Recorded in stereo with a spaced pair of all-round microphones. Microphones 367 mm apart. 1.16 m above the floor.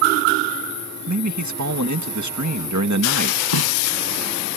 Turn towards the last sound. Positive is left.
turn(degrees=75)  # may be behind; listen again after turning